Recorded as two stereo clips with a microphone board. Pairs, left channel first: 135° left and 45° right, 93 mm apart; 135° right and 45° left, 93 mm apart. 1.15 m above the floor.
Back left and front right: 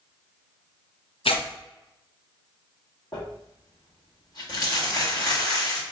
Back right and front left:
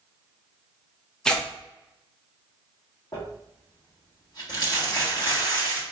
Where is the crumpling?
Straight behind, 1.4 m.